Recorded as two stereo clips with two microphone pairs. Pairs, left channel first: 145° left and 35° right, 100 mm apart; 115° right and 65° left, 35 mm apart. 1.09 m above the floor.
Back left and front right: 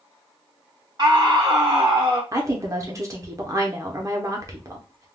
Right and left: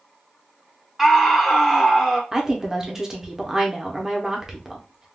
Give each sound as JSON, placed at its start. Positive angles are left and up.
{"t": 1.0, "sound": "a scream", "azimuth_deg": -15, "distance_m": 0.8}
{"t": 2.3, "sound": "a woman speaking", "azimuth_deg": 0, "distance_m": 0.8}